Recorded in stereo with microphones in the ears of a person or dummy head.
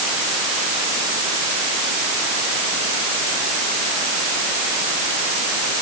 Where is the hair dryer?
No hair dryer in this recording.